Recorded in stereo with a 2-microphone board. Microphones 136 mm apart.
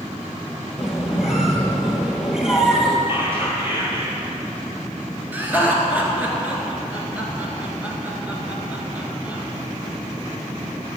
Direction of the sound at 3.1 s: 15° right (ahead or behind).